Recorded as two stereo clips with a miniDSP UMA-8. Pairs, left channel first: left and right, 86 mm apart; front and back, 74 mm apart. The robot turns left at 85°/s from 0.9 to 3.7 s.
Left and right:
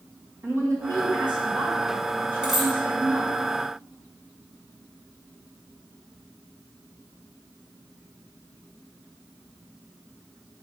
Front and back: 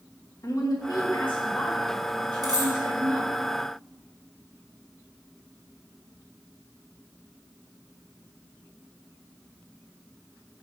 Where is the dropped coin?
170° right, 2 m; by 2.7 s 165° left, 2 m.